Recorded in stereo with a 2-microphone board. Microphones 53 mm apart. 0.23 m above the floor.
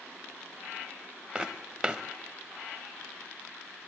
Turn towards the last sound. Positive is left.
turn(degrees=0)  # may be behind; listen again after turning